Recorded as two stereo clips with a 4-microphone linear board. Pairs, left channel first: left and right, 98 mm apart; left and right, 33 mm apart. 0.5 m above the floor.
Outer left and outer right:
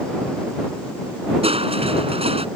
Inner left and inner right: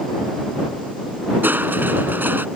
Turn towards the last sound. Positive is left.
turn(degrees=-85)